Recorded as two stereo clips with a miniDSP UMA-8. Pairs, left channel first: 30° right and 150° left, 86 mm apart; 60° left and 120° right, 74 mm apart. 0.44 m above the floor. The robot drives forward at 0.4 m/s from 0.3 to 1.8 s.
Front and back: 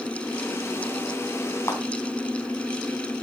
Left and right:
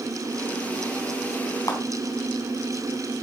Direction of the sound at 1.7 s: 25° left.